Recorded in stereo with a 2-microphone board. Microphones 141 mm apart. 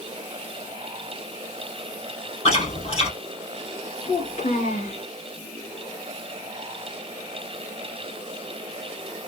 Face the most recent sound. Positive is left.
turn(degrees=55)  # may be behind; listen again after turning